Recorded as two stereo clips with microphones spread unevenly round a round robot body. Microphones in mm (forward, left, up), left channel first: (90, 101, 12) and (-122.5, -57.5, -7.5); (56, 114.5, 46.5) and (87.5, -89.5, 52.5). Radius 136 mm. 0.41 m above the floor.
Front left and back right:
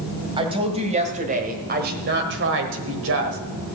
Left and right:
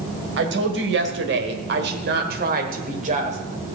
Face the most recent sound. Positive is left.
turn(degrees=-135)